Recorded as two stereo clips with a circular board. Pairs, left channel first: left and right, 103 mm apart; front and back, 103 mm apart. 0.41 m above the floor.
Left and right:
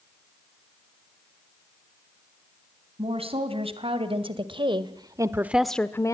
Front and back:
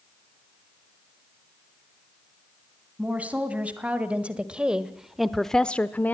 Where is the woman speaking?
105° right, 3 m; by 6.2 s 60° left, 0.9 m.